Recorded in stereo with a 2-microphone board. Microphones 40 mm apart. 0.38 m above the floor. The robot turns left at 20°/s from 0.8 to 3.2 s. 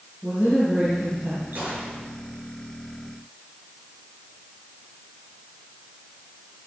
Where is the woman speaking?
25° right (ahead or behind), 6 m; by 1.4 s 35° right (ahead or behind), 6 m.